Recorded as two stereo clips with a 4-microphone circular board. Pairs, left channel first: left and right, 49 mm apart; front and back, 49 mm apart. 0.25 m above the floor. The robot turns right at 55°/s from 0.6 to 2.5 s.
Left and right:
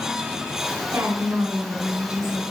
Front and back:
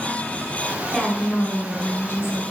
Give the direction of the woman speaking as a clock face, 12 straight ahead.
3 o'clock.